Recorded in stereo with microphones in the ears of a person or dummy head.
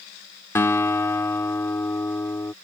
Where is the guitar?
10° left (ahead or behind).